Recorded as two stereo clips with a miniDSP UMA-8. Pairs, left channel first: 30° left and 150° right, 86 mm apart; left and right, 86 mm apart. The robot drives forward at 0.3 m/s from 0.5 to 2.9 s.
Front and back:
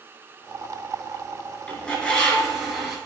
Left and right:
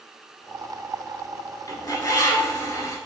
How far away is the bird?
About 0.8 m.